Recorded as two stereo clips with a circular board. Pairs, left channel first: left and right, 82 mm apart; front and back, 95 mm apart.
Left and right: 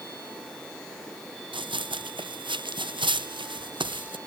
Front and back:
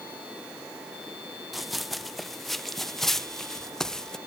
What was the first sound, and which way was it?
Running footsteps, 90° right.